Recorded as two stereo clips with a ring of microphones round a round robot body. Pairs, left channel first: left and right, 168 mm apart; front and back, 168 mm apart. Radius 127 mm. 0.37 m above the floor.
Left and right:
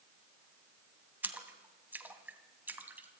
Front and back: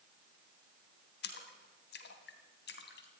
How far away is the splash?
About 2.5 m.